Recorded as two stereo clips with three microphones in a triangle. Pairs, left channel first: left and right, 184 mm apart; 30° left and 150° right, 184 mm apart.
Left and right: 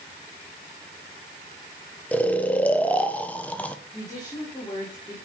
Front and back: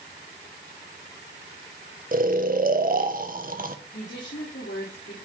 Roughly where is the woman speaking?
Ahead left.